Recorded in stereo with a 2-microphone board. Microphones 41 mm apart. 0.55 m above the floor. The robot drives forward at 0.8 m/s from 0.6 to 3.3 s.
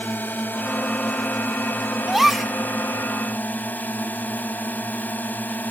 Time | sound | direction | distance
0.0 | a drone | 55° left (ahead or behind) | ?
2.1 | a gasp | 5° right (ahead or behind) | ?